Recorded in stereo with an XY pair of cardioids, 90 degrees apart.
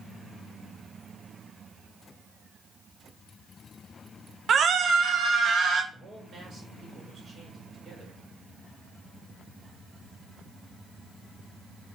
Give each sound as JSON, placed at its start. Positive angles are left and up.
{"t": 4.5, "sound": "a scream", "azimuth_deg": -60, "distance_m": 1.0}
{"t": 5.9, "sound": "a man speaking", "azimuth_deg": -50, "distance_m": 5.0}